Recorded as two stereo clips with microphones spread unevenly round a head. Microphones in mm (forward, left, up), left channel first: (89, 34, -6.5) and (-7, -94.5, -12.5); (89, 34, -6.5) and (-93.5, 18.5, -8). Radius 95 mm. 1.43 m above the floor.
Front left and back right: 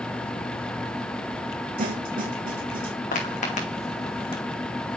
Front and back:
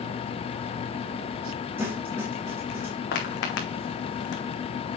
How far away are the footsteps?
About 4 m.